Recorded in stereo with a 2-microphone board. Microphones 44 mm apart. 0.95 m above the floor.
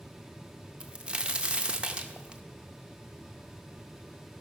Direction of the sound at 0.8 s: 25° right (ahead or behind).